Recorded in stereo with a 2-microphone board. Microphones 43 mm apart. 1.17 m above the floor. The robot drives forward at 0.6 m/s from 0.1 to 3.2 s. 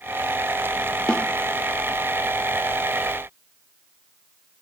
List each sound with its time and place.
1.1 s a snare drum: 20° left (ahead or behind), 0.7 m